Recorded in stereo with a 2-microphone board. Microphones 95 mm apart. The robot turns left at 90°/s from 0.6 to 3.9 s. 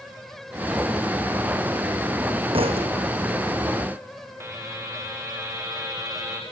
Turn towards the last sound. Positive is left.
turn(degrees=-25)  # may be behind; listen again after turning